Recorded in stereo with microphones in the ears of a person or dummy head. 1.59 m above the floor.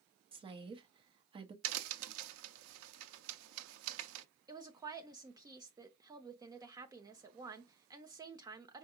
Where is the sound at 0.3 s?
35° right (ahead or behind), 0.8 m.